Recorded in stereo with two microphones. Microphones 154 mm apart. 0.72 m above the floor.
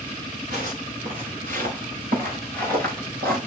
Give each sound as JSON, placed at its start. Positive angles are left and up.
{"t": 0.5, "sound": "footsteps", "side_deg": -65, "distance_m": 4.5}